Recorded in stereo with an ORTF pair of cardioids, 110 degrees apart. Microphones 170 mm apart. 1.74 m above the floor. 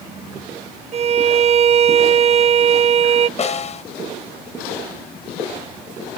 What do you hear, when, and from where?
0.9 s a violin: 40° right
3.4 s a snare drum: 40° left